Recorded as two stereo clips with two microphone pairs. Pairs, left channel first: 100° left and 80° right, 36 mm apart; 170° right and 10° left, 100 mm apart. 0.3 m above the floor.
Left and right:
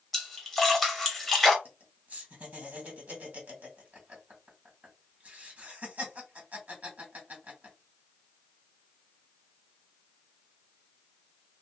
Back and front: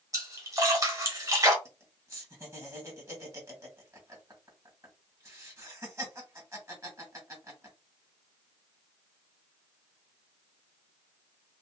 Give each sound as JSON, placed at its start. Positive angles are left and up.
{"t": 0.1, "sound": "a splash", "azimuth_deg": 20, "distance_m": 1.2}
{"t": 1.6, "sound": "laughter", "azimuth_deg": -45, "distance_m": 2.0}